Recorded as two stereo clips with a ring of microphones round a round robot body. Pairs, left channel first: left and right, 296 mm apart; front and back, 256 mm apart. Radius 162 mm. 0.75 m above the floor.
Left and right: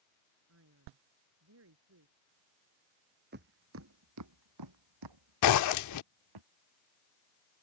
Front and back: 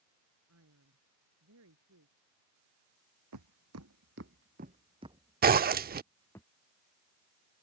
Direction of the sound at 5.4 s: 125° left.